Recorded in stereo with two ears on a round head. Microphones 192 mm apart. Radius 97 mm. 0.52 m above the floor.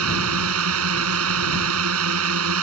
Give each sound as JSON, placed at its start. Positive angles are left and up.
{"t": 0.0, "sound": "a drone", "side_deg": -75}